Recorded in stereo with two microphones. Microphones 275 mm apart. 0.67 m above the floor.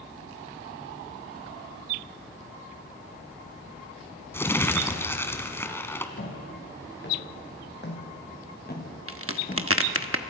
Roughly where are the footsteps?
Left.